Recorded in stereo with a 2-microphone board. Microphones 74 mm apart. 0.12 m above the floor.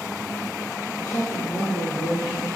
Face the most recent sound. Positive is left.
turn(degrees=70)  # may be behind; listen again after turning